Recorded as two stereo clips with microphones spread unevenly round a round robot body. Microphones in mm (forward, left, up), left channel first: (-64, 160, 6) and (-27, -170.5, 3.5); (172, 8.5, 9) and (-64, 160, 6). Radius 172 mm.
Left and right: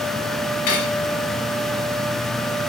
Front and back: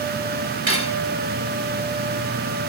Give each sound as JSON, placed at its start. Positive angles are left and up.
{"t": 0.7, "sound": "cutlery clinking", "azimuth_deg": 105, "distance_m": 3.5}